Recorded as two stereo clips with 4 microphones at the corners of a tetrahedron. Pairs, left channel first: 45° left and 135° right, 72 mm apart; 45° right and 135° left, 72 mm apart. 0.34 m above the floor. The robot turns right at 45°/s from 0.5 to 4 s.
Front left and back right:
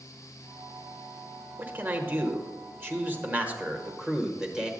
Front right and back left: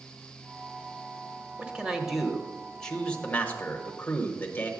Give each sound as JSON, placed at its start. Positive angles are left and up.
{"t": 1.6, "sound": "a man speaking", "azimuth_deg": -170, "distance_m": 1.1}